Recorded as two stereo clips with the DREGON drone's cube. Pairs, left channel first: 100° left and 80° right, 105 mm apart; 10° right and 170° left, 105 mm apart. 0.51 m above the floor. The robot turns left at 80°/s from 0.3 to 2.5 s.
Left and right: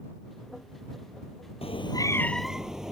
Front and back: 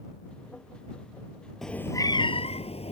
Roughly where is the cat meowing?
Left.